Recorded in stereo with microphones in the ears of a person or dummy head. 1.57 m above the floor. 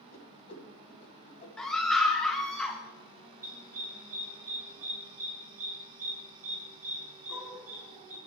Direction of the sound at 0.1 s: 45° left (ahead or behind).